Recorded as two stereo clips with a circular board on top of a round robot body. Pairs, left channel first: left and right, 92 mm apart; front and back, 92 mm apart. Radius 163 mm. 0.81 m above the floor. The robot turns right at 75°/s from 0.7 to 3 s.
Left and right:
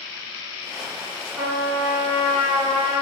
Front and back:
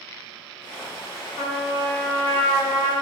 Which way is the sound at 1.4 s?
10° right.